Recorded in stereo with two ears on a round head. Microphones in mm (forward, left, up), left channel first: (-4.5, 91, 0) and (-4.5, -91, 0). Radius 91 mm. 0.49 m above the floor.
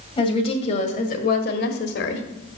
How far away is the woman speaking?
About 2.5 m.